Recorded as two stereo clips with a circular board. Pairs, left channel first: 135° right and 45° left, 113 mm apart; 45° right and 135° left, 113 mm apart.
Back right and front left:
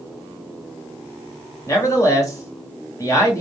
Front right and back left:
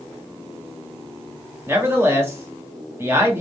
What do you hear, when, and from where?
1.7 s a man speaking: 175° right, 1.1 m